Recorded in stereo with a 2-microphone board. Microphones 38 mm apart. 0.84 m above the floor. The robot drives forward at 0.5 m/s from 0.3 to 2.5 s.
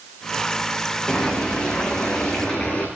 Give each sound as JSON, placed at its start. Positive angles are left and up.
{"t": 1.1, "sound": "boiling", "side_deg": 30, "distance_m": 8.0}